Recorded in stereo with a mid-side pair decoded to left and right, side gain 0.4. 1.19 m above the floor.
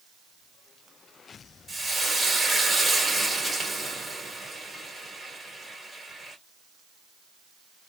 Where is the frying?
25° right, 2.0 m.